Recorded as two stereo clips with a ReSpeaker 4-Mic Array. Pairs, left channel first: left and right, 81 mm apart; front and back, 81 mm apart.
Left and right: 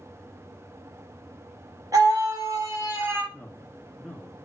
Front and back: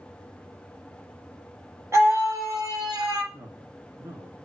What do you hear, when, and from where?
1.9 s a scream: 125° right, 3 m; by 3.2 s 150° right, 3 m
3.3 s a man speaking: 160° left, 1.7 m